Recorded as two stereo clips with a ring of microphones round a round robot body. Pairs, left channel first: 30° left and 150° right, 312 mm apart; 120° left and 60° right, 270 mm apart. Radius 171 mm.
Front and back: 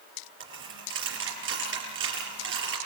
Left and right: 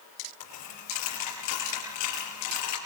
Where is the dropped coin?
155° left, 5.5 m.